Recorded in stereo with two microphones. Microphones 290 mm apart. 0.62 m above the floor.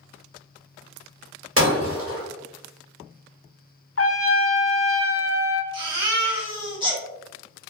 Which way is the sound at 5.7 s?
15° right (ahead or behind).